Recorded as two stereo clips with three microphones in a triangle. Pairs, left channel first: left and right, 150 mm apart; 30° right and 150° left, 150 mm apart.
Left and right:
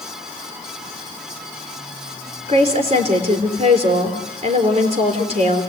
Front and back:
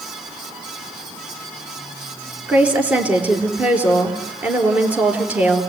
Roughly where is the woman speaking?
Behind right.